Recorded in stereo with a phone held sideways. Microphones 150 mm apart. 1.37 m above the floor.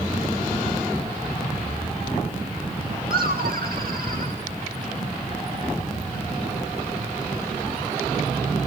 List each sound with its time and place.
3.1 s laughter: 80° right, 2.0 m; by 4.4 s 70° right (ahead or behind), 2.5 m